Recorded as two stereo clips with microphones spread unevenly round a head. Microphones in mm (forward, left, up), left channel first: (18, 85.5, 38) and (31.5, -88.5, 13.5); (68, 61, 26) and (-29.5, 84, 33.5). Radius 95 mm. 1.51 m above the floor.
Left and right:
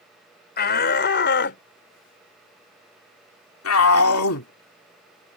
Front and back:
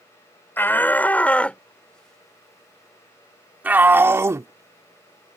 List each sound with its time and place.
0.6 s a shout: 60° left; by 5.4 s 120° left